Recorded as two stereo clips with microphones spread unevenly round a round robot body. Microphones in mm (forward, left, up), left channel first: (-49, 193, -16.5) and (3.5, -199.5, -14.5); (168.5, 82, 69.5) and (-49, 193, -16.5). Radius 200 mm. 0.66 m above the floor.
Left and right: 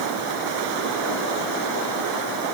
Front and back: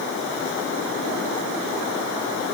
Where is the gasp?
I don't hear a gasp.